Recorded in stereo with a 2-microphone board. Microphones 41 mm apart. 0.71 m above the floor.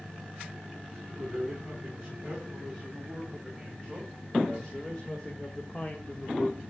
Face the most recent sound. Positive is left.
turn(degrees=55)  # may be behind; listen again after turning